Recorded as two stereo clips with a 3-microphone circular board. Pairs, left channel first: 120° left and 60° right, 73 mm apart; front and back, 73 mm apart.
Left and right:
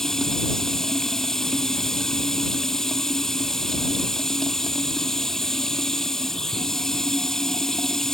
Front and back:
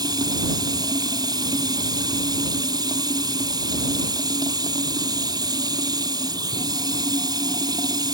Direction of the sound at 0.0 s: 155° right.